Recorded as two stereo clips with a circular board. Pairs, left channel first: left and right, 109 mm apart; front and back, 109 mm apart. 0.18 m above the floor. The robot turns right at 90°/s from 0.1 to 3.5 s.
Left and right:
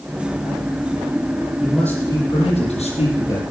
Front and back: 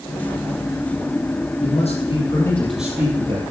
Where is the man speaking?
15° right, 4.5 m; by 3.4 s 145° left, 4.5 m.